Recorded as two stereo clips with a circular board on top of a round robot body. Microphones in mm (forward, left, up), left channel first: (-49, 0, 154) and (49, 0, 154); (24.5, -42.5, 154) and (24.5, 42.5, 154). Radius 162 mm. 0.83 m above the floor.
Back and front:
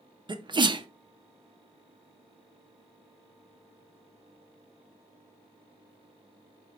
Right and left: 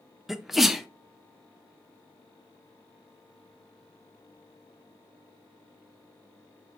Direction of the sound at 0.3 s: 5° left.